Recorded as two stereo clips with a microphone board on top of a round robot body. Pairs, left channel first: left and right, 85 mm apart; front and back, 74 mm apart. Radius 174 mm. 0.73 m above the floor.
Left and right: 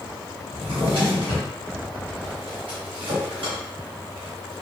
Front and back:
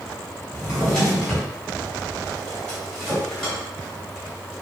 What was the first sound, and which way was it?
A drawer, 80° right.